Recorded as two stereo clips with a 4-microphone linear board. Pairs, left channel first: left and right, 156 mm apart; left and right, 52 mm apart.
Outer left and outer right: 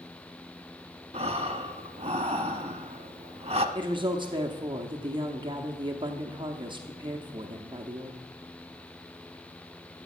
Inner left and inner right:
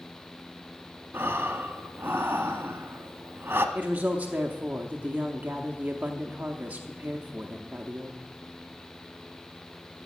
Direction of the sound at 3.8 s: 30° right (ahead or behind).